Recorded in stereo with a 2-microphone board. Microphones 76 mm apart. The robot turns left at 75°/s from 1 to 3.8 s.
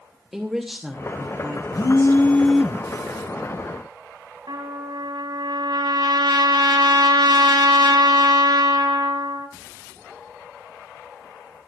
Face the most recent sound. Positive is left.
turn(degrees=-70)  # may be behind; listen again after turning